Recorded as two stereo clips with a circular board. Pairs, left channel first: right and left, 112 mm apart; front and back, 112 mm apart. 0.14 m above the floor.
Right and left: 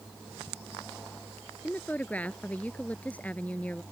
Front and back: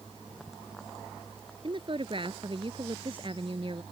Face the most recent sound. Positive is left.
turn(degrees=-165)